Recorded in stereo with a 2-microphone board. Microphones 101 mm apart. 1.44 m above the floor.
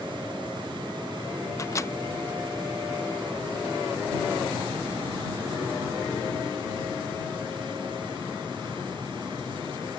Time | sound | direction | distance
1.6 | a microwave | 30° left (ahead or behind) | ?